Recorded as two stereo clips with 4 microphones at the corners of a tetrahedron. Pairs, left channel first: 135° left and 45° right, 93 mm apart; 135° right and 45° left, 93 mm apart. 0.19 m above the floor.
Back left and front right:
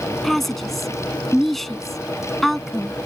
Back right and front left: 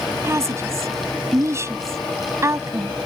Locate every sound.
0.2 s a woman speaking: 50° left